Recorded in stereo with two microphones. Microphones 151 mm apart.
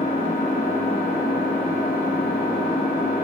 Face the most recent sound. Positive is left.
turn(degrees=70)  # may be behind; listen again after turning